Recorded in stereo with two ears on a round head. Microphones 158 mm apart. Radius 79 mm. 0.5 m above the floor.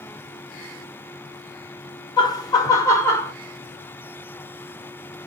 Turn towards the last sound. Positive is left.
turn(degrees=15)  # may be behind; listen again after turning